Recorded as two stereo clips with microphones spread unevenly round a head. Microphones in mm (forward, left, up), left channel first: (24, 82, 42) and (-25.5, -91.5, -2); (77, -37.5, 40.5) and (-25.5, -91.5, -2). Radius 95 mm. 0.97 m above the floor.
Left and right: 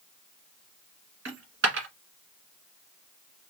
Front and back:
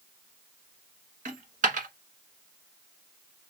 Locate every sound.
1.2 s a dropped coin: 135° right, 1.6 m